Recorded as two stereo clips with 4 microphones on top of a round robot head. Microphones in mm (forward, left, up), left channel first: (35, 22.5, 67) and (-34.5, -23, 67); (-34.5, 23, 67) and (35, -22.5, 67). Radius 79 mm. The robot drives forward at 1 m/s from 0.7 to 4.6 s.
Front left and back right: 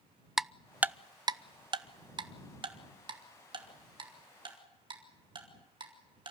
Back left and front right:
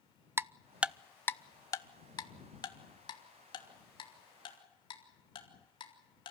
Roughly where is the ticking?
Ahead right.